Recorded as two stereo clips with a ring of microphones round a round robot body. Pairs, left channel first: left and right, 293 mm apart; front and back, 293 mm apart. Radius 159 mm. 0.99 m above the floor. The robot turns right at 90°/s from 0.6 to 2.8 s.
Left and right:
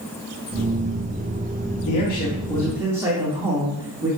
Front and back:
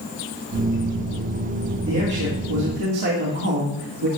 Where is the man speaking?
105° left, 2 m; by 4.1 s 170° right, 2 m.